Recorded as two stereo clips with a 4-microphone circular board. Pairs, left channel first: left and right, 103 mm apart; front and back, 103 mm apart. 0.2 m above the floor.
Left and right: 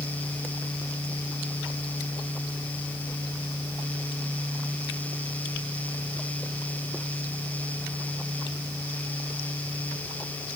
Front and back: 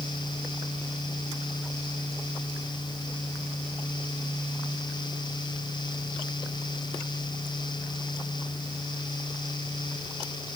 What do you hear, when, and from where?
Only background noise.